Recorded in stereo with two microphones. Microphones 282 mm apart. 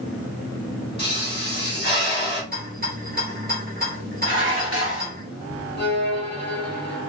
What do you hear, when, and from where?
1.0 s a pop: 40° left (ahead or behind), 1.6 m
2.5 s a rattle: 30° right (ahead or behind), 1.2 m
4.2 s dishes clattering: 50° right (ahead or behind), 1.3 m
5.8 s a violin: 35° left (ahead or behind), 1.1 m